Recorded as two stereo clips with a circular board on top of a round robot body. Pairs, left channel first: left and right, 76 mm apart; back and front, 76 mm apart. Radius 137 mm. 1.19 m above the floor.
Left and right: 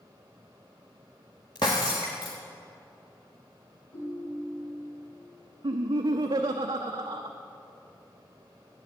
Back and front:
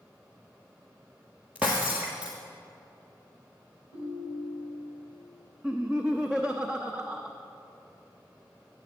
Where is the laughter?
80° right, 0.7 m.